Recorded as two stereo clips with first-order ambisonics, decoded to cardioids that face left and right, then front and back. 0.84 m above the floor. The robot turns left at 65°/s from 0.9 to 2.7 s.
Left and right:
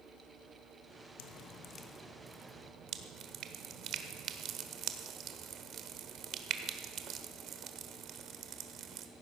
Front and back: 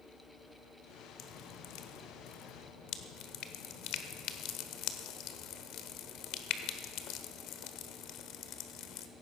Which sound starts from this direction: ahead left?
Dripping, at 1.2 s.